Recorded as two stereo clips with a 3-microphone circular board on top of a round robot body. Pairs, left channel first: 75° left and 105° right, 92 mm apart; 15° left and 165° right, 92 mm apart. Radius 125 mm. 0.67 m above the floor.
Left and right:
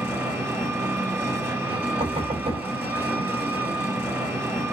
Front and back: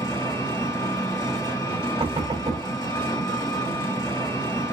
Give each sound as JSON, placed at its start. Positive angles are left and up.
{"t": 0.0, "sound": "an engine running", "azimuth_deg": -40, "distance_m": 1.7}
{"t": 2.0, "sound": "knocking", "azimuth_deg": -125, "distance_m": 1.7}